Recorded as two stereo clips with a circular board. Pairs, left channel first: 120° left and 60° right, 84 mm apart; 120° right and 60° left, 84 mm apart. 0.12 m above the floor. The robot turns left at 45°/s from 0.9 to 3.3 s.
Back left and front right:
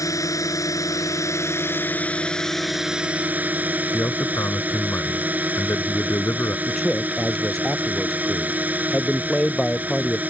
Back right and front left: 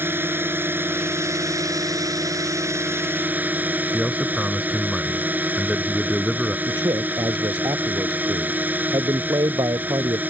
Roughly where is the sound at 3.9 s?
Behind left.